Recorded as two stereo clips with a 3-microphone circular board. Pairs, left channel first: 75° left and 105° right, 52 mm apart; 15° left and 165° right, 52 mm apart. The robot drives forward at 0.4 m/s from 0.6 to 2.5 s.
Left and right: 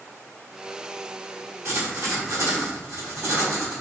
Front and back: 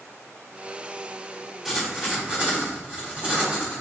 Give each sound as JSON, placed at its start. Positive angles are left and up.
{"t": 1.6, "sound": "writing", "azimuth_deg": -80, "distance_m": 0.9}